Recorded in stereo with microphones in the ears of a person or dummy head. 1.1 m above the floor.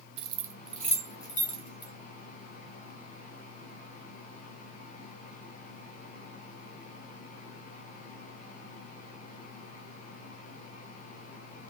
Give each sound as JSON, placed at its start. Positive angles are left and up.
{"t": 0.2, "sound": "keys jangling", "side_deg": -30, "distance_m": 0.5}